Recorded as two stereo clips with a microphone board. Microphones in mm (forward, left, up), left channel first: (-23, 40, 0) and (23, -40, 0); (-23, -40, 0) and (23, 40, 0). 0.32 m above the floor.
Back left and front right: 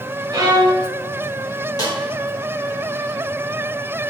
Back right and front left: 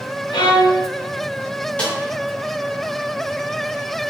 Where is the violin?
95° right, 0.7 m.